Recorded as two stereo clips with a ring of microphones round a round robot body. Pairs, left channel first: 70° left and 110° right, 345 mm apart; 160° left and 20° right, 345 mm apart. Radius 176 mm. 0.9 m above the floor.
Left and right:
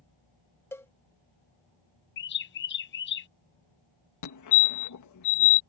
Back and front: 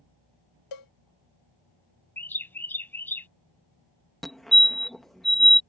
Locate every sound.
0.7 s a cowbell: 150° left
2.2 s a bird: 80° left
4.2 s a fire alarm: 70° left